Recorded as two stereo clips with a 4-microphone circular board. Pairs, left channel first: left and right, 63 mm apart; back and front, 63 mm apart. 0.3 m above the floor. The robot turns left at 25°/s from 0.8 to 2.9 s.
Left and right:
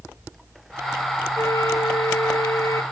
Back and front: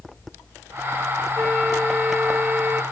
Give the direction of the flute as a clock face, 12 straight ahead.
8 o'clock.